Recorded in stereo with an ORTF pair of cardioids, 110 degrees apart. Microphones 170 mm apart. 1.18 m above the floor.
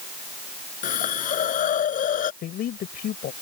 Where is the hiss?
55° left.